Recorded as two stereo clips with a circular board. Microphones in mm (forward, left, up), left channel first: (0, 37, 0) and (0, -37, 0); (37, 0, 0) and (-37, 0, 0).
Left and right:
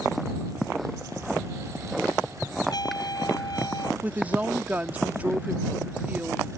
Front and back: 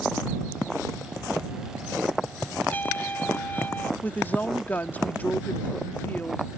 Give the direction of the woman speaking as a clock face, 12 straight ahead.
1 o'clock.